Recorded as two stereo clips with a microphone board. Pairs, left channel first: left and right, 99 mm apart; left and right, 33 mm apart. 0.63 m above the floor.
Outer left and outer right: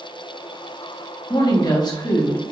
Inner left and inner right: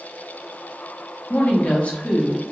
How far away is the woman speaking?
About 0.9 m.